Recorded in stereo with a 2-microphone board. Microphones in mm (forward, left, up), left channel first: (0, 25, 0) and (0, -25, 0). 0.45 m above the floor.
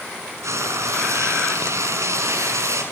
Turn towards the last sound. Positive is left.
turn(degrees=-75)  # may be behind; listen again after turning